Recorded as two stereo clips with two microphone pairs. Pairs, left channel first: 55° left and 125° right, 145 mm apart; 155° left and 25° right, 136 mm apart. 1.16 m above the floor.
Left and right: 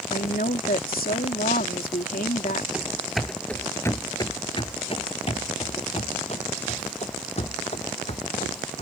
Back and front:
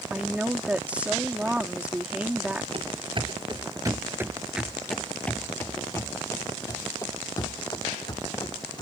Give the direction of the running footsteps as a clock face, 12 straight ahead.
2 o'clock.